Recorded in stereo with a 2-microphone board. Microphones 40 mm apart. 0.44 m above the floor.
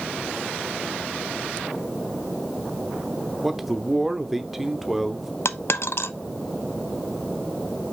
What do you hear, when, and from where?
3.4 s a man speaking: 5° right (ahead or behind), 0.9 m
5.5 s a dropped coin: 70° left (ahead or behind), 0.5 m